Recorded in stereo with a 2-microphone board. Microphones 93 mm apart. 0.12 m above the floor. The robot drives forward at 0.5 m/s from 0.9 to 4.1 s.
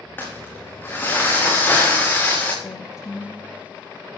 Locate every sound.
0.2 s crumpling: 25° left (ahead or behind), 6.5 m; by 2.5 s 20° left (ahead or behind), 7.5 m
2.6 s a woman speaking: 40° left (ahead or behind), 4.5 m; by 3.5 s 45° left (ahead or behind), 4 m